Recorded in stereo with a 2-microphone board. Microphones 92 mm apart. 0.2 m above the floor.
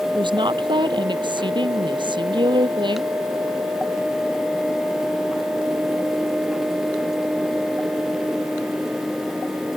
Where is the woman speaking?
60° right (ahead or behind).